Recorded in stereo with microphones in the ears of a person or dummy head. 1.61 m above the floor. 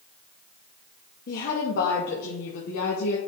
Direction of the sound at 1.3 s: 50° left (ahead or behind).